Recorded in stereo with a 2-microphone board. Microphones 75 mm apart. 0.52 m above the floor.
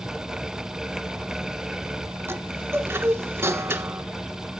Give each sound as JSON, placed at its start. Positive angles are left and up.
{"t": 2.3, "sound": "a chime", "side_deg": -35, "distance_m": 1.3}